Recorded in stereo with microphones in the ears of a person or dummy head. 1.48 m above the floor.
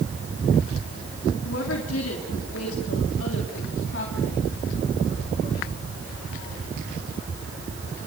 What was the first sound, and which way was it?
A woman speaking, 70° left (ahead or behind).